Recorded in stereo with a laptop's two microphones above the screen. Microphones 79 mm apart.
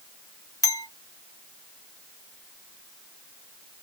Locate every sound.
0.6 s a clink: 45° left (ahead or behind), 1.1 m